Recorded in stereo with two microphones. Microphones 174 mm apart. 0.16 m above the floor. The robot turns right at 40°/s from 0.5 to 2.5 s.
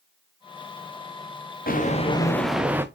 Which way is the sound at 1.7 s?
50° left (ahead or behind).